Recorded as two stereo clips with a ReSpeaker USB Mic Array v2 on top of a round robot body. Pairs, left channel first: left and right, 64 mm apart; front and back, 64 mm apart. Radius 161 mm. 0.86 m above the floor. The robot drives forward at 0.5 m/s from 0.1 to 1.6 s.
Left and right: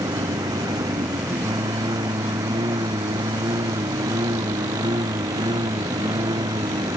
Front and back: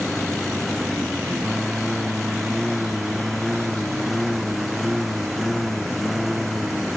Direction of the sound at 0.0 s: 85° right.